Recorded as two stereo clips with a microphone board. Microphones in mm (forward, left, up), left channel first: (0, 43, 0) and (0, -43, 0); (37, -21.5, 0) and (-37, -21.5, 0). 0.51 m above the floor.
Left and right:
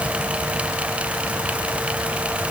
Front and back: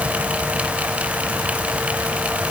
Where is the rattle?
I don't hear a rattle.